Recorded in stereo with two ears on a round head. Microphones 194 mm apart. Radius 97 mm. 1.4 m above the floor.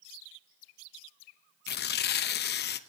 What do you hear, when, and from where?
1.7 s tearing paper: 50° left (ahead or behind), 0.8 m